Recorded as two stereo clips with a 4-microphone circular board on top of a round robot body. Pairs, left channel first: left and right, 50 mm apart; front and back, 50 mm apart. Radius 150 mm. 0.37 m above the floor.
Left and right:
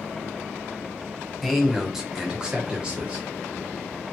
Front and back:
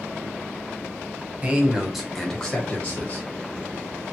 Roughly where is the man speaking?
Behind.